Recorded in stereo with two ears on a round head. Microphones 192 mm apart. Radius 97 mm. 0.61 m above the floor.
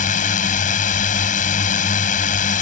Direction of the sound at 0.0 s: 35° left (ahead or behind).